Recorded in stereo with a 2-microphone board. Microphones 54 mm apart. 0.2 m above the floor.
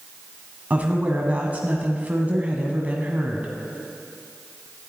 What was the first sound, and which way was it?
A woman speaking, 30° right (ahead or behind).